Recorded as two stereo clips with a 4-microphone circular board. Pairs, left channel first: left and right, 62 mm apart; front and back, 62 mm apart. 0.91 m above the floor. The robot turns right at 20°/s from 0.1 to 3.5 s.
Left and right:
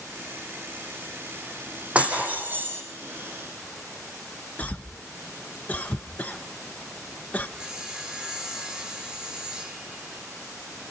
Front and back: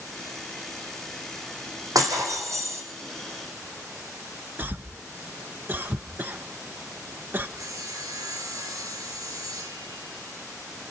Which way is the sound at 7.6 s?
170° right.